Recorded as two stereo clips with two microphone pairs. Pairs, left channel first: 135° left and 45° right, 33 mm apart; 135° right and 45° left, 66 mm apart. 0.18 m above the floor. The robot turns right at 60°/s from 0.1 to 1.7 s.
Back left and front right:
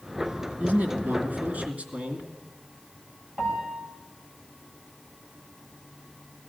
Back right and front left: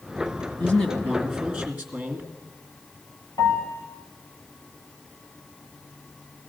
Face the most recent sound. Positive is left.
turn(degrees=-105)